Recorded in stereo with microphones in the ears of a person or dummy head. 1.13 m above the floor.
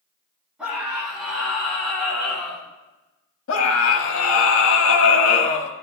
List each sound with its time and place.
0.6 s a scream: centre (ahead or behind), 4.5 m; by 2.6 s 5° left (ahead or behind), 5.5 m
3.5 s a scream: 85° left, 1.5 m